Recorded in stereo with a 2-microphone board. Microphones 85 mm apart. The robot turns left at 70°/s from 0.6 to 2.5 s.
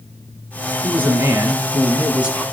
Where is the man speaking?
15° right (ahead or behind), 1.2 m; by 2.4 s 10° right (ahead or behind), 1.2 m.